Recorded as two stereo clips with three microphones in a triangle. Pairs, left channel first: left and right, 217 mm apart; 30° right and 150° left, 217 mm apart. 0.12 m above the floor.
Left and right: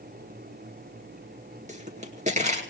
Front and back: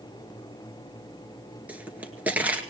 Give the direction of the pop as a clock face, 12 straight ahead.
4 o'clock.